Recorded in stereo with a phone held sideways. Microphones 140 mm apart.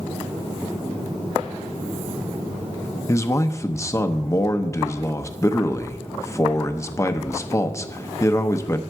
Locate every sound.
3.1 s a man speaking: 20° left (ahead or behind), 0.7 m